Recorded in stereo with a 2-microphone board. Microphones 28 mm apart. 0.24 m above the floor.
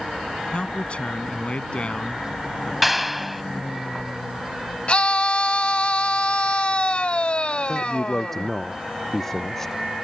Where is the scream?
45° left (ahead or behind).